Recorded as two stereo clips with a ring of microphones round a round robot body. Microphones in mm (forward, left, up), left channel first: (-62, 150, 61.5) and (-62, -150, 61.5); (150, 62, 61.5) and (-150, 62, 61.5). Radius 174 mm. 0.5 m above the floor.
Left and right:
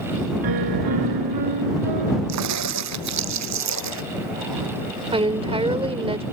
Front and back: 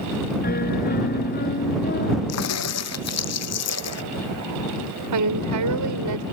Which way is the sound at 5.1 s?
160° right.